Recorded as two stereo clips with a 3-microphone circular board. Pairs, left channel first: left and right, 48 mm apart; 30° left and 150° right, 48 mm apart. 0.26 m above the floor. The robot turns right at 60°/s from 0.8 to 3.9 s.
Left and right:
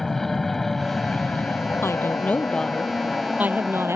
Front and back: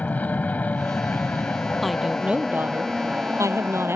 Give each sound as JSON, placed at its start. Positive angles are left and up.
{"t": 0.0, "sound": "an aircraft", "azimuth_deg": 10}
{"t": 1.8, "sound": "a woman speaking", "azimuth_deg": 120}